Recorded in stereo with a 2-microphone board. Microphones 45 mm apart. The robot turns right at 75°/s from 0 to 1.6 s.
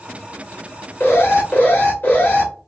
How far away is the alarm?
About 1.2 m.